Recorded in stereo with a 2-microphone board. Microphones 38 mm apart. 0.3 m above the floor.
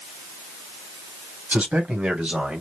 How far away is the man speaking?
About 1.9 m.